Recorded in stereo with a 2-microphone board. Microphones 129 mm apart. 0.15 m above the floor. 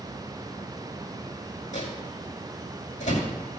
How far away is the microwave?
About 6 m.